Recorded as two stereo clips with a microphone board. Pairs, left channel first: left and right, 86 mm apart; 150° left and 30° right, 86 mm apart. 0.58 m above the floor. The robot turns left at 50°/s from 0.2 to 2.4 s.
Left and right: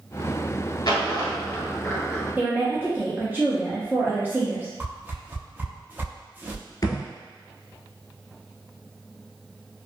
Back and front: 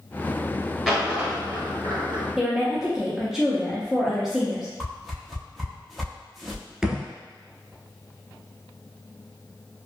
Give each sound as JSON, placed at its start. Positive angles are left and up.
{"t": 0.8, "sound": "a dropped coin", "azimuth_deg": 60, "distance_m": 1.1}
{"t": 2.4, "sound": "a woman speaking", "azimuth_deg": -105, "distance_m": 0.6}
{"t": 4.8, "sound": "a whoosh", "azimuth_deg": -120, "distance_m": 0.5}
{"t": 6.8, "sound": "a thud", "azimuth_deg": 55, "distance_m": 0.8}